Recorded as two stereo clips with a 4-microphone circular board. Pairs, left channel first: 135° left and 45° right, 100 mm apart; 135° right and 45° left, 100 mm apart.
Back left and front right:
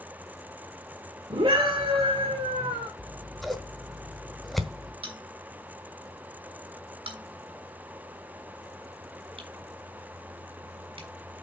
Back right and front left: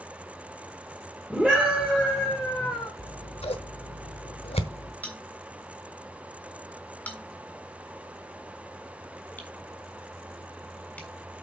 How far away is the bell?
About 3 m.